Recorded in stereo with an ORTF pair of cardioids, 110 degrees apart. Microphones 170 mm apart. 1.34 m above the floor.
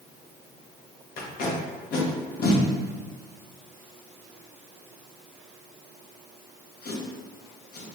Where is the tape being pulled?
65° left, 1.2 m.